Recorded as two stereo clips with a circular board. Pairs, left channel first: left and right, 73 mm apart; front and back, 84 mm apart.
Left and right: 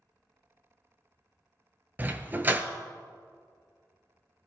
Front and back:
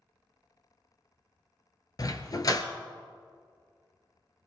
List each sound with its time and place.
2.0 s a dog barking: 30° right, 1.0 m